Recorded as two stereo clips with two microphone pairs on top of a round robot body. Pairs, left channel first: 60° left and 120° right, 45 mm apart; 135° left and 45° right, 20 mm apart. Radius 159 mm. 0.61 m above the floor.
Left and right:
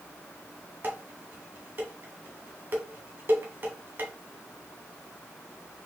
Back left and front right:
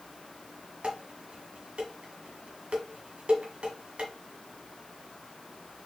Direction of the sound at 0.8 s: 85° right.